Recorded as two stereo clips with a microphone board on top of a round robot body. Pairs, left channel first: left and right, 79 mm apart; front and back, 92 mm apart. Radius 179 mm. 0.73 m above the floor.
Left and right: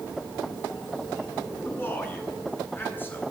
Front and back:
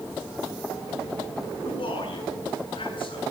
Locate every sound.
1.6 s a man speaking: 25° left, 9.5 m